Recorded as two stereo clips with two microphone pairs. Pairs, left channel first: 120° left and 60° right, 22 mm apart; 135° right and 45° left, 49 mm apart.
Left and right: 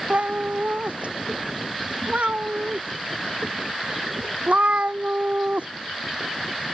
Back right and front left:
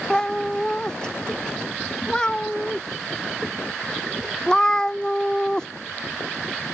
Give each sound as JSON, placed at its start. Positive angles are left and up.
{"t": 0.1, "sound": "a cat meowing", "azimuth_deg": -60}